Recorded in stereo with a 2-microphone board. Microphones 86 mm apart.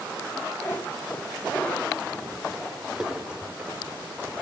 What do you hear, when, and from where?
0.6 s a cat meowing: 30° left (ahead or behind), 2 m; by 4.4 s 30° right (ahead or behind), 1.7 m